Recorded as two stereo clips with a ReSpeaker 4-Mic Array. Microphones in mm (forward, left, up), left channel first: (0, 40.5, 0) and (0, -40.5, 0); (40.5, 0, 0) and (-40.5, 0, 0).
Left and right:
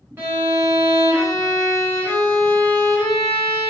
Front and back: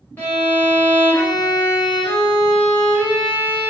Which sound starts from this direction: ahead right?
A violin, at 0.2 s.